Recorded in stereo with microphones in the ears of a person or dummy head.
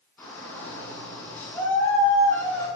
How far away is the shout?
About 6.5 m.